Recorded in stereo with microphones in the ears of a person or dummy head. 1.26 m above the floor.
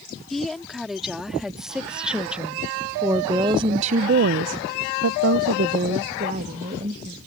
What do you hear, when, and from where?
0.3 s a woman speaking: 5° left (ahead or behind); by 7.2 s 30° right (ahead or behind)